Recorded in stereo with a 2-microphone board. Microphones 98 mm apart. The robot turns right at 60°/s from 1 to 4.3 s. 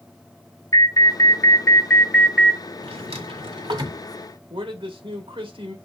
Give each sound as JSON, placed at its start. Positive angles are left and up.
{"t": 0.7, "sound": "an alarm", "azimuth_deg": 105, "distance_m": 1.5}
{"t": 2.8, "sound": "a drawer", "side_deg": -70, "distance_m": 1.5}
{"t": 4.5, "sound": "a man speaking", "side_deg": -60, "distance_m": 1.5}